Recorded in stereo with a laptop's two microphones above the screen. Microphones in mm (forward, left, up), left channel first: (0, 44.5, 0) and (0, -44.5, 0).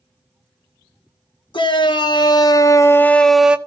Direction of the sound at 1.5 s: 60° left (ahead or behind).